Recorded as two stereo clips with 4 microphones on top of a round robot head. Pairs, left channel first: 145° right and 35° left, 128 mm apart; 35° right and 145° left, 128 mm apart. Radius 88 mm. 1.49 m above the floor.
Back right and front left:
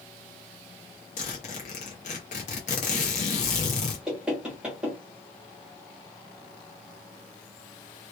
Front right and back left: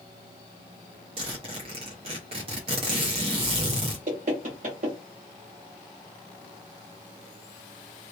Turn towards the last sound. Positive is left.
turn(degrees=120)